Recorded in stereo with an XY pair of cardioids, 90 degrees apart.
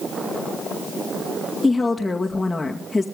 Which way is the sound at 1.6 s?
15° left.